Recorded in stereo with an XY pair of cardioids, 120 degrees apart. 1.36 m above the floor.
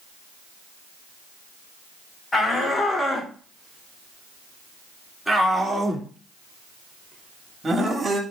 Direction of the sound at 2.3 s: 25° left.